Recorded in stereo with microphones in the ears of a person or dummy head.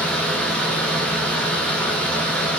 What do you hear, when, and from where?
0.0 s a fan: 5° left (ahead or behind), 0.8 m